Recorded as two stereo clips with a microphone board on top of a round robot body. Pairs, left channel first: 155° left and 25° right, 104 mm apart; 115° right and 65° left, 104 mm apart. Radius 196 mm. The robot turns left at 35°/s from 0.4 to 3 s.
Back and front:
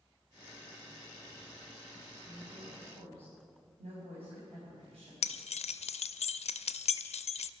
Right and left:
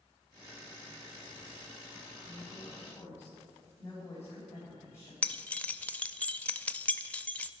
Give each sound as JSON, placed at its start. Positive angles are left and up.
{"t": 2.2, "sound": "a woman speaking", "azimuth_deg": -20, "distance_m": 3.5}
{"t": 5.2, "sound": "keys jangling", "azimuth_deg": 170, "distance_m": 0.5}